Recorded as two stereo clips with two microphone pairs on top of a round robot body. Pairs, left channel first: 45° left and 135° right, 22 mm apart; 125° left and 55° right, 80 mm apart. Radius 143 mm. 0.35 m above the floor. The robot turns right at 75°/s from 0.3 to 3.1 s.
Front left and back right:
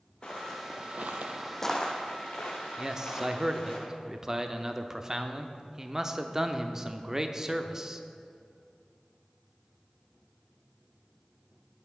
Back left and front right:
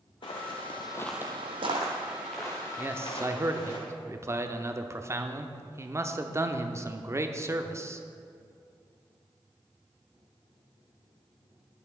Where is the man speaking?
120° right, 1.0 m; by 8.0 s 95° right, 1.0 m.